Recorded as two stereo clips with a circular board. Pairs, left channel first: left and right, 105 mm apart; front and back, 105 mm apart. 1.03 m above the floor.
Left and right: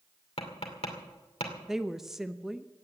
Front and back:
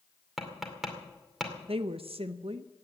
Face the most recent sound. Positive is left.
turn(degrees=-175)